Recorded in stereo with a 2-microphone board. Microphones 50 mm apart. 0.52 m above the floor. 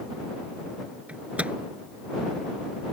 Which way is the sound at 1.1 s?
30° right (ahead or behind).